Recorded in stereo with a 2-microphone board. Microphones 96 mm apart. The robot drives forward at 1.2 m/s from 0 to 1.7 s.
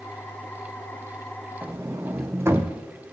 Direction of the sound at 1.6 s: 25° right (ahead or behind).